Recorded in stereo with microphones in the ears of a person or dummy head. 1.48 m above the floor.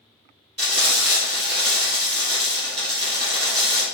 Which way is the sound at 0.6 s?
35° right (ahead or behind).